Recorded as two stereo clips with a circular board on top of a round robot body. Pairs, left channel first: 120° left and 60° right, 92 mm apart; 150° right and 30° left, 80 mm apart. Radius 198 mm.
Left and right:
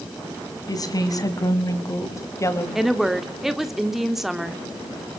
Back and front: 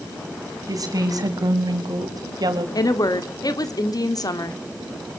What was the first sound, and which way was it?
A woman speaking, 70° left.